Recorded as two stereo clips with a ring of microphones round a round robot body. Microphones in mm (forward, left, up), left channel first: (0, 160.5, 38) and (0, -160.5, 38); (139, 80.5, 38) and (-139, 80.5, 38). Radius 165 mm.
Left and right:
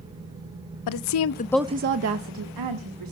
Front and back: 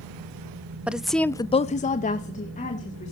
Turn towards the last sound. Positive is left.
turn(degrees=-70)